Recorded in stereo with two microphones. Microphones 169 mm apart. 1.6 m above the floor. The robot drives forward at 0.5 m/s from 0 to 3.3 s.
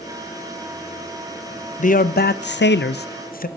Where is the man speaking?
45° left (ahead or behind), 0.6 m; by 3.5 s 55° left (ahead or behind), 0.6 m.